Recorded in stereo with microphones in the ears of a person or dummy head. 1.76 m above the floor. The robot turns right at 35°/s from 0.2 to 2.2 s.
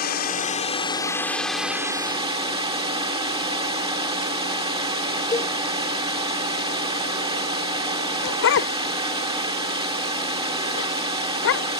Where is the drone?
130° left; by 11.8 s 160° right.